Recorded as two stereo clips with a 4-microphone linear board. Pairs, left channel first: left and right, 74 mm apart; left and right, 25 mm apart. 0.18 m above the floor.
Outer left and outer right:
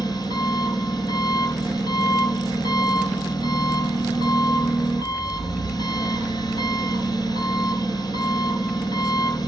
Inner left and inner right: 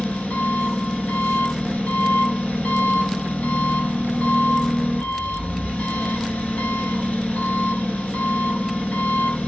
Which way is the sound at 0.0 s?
70° left (ahead or behind).